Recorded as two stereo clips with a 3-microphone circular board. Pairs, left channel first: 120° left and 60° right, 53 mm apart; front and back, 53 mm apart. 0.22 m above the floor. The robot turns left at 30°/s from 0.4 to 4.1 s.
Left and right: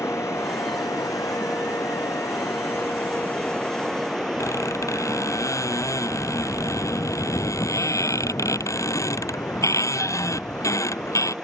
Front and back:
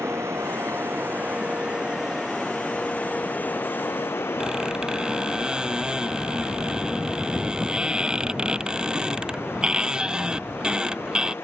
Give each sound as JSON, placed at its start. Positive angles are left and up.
{"t": 0.0, "sound": "running water", "azimuth_deg": 145}
{"t": 4.4, "sound": "a squeak", "azimuth_deg": 105}